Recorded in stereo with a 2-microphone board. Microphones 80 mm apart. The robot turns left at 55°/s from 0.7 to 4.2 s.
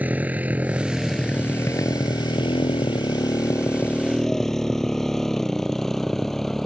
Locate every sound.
0.0 s a motorcycle: 20° right (ahead or behind); by 6.7 s 5° left (ahead or behind)